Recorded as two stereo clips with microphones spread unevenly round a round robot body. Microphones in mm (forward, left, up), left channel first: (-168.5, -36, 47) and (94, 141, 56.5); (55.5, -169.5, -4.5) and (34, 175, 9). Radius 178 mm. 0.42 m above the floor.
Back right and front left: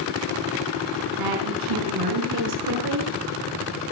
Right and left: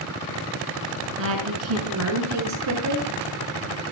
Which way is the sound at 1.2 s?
40° left.